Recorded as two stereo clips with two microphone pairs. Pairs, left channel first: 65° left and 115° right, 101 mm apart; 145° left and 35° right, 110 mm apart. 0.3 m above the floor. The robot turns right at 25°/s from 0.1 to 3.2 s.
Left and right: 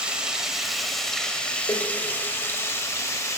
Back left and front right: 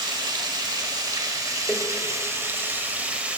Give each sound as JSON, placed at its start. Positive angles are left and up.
{"t": 0.0, "sound": "running water", "azimuth_deg": -40, "distance_m": 0.9}
{"t": 1.7, "sound": "a door slam", "azimuth_deg": 60, "distance_m": 0.7}